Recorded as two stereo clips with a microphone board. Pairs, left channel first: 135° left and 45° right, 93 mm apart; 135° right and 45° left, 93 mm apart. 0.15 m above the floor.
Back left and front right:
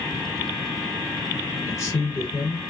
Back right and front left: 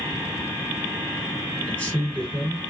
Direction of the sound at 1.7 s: 155° left.